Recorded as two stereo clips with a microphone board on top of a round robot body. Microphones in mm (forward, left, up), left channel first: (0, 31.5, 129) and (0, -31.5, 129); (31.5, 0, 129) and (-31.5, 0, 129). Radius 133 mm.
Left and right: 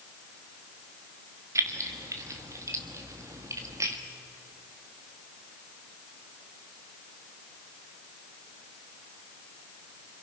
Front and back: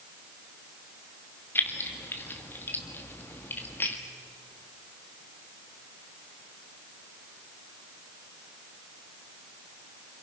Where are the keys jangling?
55° right, 1.4 m.